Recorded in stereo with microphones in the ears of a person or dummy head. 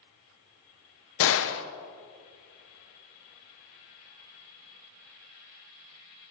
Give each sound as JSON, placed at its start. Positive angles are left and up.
{"t": 1.2, "sound": "a gunshot", "side_deg": 70, "distance_m": 0.8}